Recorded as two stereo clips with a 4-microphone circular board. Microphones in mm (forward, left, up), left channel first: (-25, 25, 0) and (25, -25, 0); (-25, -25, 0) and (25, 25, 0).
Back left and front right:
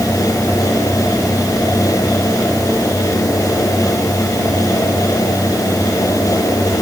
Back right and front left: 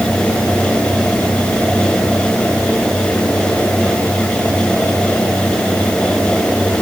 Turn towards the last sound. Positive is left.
No sound to turn to.